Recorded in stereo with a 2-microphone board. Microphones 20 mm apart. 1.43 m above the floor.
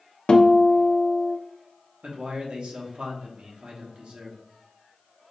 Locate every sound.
0.3 s a guitar: 50° left (ahead or behind), 0.5 m
2.0 s a man speaking: 75° right (ahead or behind), 1.0 m